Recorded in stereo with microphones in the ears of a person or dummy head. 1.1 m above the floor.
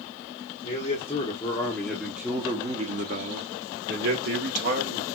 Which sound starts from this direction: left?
A man speaking, at 0.6 s.